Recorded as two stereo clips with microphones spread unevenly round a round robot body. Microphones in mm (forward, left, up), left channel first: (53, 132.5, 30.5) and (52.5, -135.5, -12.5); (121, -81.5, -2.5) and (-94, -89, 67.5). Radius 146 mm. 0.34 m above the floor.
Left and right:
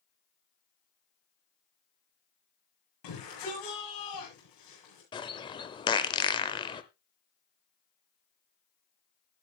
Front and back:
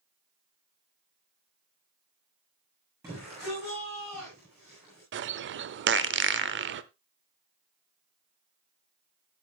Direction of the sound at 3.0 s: 95° left.